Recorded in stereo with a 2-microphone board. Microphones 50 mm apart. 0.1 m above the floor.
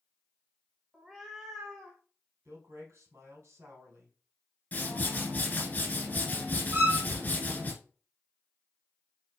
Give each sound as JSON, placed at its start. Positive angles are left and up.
{"t": 0.9, "sound": "a cat meowing", "side_deg": -10, "distance_m": 0.7}
{"t": 2.5, "sound": "a man speaking", "side_deg": -65, "distance_m": 2.0}
{"t": 4.7, "sound": "a whoosh", "side_deg": 35, "distance_m": 2.5}
{"t": 6.7, "sound": "a violin", "side_deg": -50, "distance_m": 2.5}